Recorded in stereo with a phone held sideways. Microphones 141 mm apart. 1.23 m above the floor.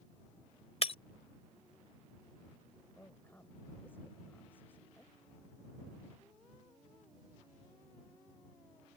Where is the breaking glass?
50° left (ahead or behind).